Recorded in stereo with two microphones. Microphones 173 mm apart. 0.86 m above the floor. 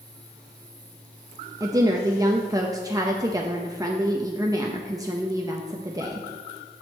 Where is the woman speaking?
20° right (ahead or behind), 0.6 m.